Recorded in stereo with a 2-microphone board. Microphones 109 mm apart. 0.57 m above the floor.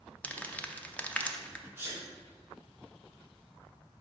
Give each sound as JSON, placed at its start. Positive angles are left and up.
{"t": 0.2, "sound": "crumpling", "side_deg": 15, "distance_m": 0.6}
{"t": 1.8, "sound": "a sneeze", "side_deg": -20, "distance_m": 1.1}